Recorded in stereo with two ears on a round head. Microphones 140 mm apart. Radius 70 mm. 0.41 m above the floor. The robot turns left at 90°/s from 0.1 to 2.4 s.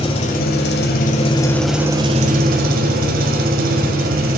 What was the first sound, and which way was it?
An engine running, 140° left.